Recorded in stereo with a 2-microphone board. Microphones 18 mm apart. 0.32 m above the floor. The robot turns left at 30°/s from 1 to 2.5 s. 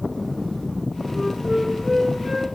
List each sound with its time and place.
1.1 s a flute: 15° left, 3 m; by 2.5 s 25° right, 3 m